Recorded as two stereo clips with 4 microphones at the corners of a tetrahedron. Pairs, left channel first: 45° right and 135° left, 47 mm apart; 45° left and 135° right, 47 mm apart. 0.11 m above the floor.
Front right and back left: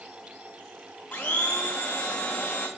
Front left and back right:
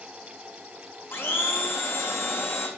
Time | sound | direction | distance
1.1 | a blender | 15° left | 1.3 m